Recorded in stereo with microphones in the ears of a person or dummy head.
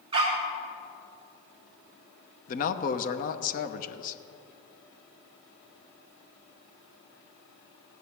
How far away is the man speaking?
About 0.9 m.